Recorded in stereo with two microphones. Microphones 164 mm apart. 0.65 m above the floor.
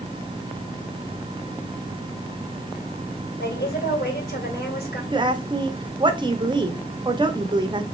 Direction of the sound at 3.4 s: 80° left.